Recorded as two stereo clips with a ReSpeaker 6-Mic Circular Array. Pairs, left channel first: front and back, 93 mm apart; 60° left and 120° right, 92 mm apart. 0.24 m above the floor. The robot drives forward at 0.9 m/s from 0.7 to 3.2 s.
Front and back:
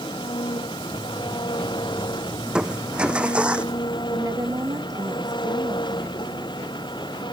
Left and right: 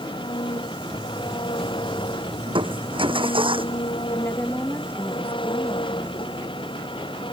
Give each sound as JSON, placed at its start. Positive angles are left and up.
{"t": 0.0, "sound": "an engine running", "azimuth_deg": 35}
{"t": 2.5, "sound": "crushing", "azimuth_deg": -100}
{"t": 4.1, "sound": "a woman speaking", "azimuth_deg": 125}